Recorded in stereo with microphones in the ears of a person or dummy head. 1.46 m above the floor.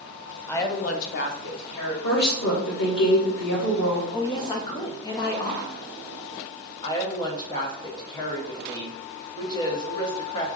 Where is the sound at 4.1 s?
25° left (ahead or behind), 0.8 m.